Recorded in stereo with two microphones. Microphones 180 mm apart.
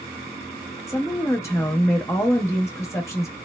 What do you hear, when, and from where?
0.9 s a woman speaking: 15° left (ahead or behind), 0.7 m